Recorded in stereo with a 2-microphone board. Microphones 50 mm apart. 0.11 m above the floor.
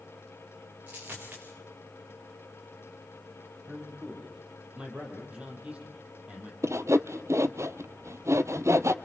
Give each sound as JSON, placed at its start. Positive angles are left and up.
{"t": 0.9, "sound": "a dropped coin", "side_deg": -35, "distance_m": 6.5}
{"t": 3.7, "sound": "a man speaking", "side_deg": -25, "distance_m": 5.0}
{"t": 6.6, "sound": "sawing", "side_deg": -70, "distance_m": 0.9}